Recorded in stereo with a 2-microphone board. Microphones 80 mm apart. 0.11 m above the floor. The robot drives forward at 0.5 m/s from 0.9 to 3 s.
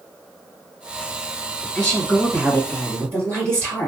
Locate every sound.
1.8 s a woman speaking: 20° left (ahead or behind), 2 m; by 3.9 s 15° left (ahead or behind), 2.5 m